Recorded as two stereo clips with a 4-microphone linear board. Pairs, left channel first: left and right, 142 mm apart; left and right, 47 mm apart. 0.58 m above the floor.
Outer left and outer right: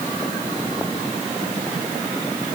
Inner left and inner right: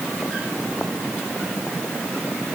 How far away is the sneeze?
I don't hear a sneeze.